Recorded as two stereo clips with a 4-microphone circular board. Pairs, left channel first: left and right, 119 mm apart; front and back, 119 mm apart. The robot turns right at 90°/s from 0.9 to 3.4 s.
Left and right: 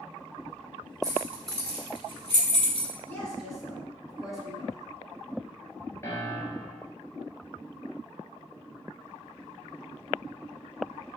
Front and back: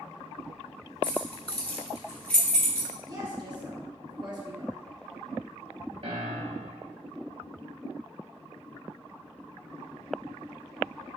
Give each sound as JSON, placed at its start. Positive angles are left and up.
{"t": 1.0, "sound": "keys jangling", "azimuth_deg": -35, "distance_m": 1.5}
{"t": 3.1, "sound": "a woman speaking", "azimuth_deg": 155, "distance_m": 1.3}
{"t": 6.0, "sound": "a piano", "azimuth_deg": 155, "distance_m": 1.0}